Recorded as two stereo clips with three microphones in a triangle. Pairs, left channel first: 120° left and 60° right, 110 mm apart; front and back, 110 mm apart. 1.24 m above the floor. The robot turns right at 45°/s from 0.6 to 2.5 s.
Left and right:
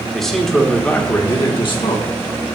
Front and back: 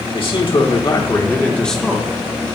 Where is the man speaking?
35° left, 1.7 m; by 2.5 s 120° left, 1.7 m.